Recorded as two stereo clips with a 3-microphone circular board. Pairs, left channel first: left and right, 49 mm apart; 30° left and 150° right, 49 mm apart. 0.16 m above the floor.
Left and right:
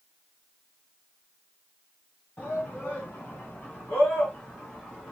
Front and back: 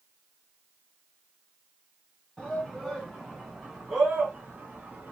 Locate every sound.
2.4 s a shout: 105° left, 2.0 m; by 5.1 s 155° left, 2.5 m